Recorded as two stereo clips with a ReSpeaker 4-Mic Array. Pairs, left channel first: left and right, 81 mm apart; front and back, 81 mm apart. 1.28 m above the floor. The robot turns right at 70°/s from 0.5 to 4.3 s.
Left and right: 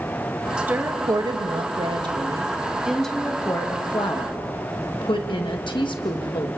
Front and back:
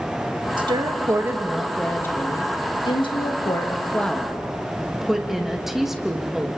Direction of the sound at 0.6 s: 170° right.